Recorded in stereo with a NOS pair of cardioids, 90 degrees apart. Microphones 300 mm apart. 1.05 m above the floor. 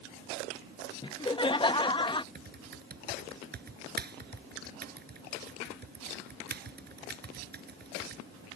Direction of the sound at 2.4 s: 35° right.